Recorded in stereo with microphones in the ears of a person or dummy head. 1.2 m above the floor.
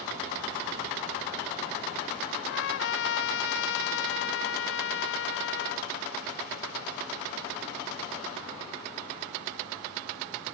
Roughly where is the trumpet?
Left.